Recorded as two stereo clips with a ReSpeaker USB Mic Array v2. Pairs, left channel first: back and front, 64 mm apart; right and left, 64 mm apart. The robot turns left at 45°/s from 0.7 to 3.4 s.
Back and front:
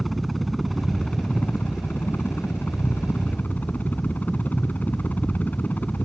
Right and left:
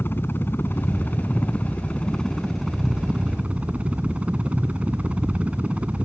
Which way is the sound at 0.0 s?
95° right.